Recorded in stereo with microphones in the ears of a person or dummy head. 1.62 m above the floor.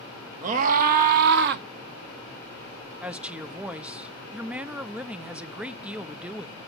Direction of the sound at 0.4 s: 40° right (ahead or behind).